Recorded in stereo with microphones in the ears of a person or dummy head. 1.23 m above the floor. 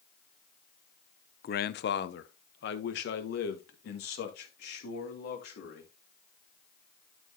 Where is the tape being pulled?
I don't hear tape being pulled.